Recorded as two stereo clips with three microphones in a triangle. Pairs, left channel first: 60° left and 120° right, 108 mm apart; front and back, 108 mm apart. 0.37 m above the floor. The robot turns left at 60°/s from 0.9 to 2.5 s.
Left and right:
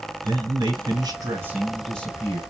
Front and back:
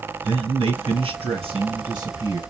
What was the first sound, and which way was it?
A man speaking, 155° right.